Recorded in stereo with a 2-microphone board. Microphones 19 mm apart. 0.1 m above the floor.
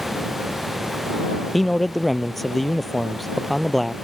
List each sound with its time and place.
1.5 s a man speaking: 10° left (ahead or behind)